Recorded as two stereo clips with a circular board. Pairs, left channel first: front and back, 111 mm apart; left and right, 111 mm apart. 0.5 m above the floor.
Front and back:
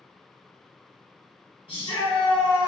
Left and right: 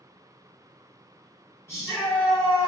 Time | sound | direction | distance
1.7 | a shout | 25° left | 1.7 m